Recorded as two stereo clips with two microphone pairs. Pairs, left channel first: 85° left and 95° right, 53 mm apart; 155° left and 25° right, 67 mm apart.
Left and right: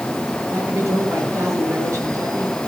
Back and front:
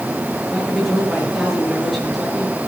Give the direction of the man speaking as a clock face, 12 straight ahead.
4 o'clock.